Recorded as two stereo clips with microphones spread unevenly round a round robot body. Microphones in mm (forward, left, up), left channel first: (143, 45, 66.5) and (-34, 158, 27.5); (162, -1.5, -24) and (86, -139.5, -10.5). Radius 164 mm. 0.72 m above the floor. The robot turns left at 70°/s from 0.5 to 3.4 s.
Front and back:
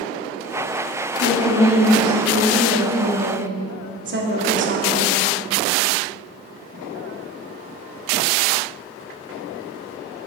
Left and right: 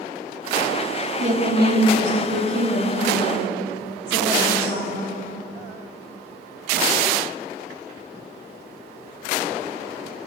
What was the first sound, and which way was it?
A woman speaking, 70° right.